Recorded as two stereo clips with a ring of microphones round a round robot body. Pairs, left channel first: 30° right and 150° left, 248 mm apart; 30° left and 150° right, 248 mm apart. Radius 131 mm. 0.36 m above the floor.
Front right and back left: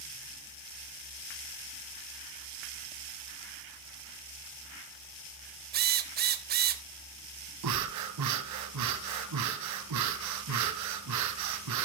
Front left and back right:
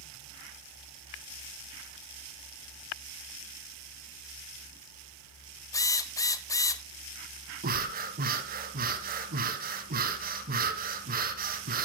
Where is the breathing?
155° left, 1.7 m.